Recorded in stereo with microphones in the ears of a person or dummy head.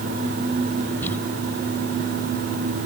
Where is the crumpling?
10° left (ahead or behind).